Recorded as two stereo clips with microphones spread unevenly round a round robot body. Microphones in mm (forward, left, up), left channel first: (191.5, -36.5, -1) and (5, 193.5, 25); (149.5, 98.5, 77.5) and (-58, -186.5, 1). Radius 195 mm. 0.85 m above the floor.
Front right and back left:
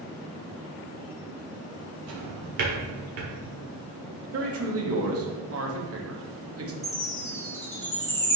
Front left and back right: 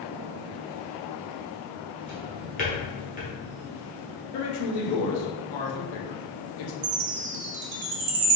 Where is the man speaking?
85° left, 1.1 m.